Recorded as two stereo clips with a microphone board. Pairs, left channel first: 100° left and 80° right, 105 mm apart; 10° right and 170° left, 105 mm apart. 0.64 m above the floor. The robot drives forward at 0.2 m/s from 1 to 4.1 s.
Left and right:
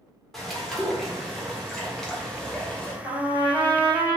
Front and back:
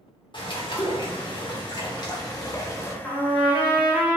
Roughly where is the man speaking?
No man speaking in this recording.